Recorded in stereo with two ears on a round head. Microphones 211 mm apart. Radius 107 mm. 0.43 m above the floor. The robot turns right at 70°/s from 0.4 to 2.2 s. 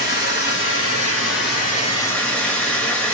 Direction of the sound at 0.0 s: 45° left.